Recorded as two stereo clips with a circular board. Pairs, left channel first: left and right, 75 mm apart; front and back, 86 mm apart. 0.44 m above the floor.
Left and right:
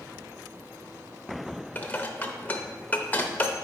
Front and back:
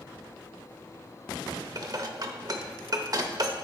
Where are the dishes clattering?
150° left, 0.7 m.